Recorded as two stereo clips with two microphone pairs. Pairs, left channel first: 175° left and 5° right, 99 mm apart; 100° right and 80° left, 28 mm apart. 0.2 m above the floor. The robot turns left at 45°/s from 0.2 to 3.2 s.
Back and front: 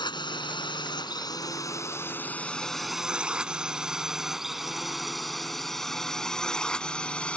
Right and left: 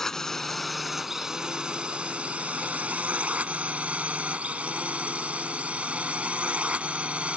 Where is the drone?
165° right; by 7.4 s 105° left.